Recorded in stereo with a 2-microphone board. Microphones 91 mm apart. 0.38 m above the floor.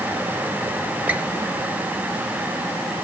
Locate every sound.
1.1 s a squeak: 20° right (ahead or behind), 1.4 m